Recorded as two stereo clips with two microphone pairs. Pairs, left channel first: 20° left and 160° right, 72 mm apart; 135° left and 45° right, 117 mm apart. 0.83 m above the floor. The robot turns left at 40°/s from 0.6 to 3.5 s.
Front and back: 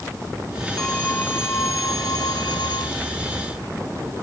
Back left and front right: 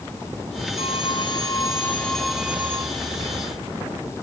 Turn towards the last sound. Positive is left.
turn(degrees=-5)